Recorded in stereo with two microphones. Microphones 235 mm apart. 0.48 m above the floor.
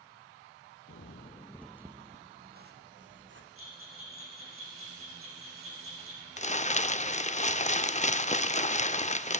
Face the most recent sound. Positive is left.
turn(degrees=30)  # may be behind; listen again after turning